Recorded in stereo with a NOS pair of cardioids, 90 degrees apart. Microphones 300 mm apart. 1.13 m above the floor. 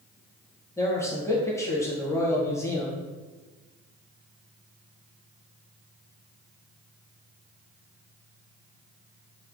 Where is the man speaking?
10° left, 0.9 m.